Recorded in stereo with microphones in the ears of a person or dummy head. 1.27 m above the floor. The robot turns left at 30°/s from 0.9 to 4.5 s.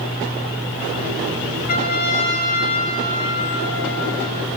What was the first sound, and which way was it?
A trumpet, 140° left.